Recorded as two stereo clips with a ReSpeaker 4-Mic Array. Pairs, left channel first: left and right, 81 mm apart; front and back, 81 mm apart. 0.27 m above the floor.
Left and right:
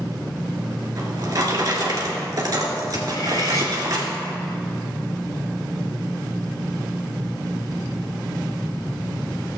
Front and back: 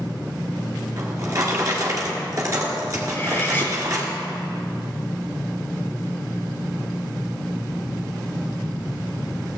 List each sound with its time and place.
1.0 s a drawer: 135° right, 1.9 m
3.1 s cutlery clinking: 60° left, 1.4 m